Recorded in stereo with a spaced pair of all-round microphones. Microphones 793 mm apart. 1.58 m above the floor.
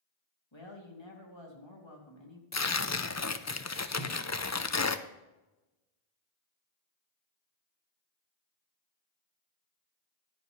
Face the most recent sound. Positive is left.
turn(degrees=35)  # may be behind; listen again after turning